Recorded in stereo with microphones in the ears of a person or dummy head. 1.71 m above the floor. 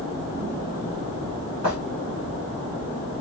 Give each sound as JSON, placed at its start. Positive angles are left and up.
{"t": 1.6, "sound": "footsteps", "side_deg": -25, "distance_m": 1.8}